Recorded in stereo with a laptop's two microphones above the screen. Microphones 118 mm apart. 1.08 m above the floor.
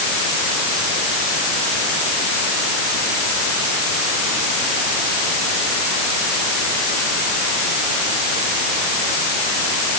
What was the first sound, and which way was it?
Only background noise.